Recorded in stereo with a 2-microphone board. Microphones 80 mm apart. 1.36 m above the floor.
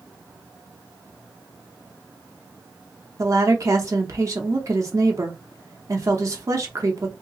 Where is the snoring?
I don't hear snoring.